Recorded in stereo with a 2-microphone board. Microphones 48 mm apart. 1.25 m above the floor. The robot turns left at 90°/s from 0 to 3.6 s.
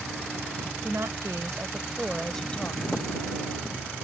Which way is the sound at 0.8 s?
50° right.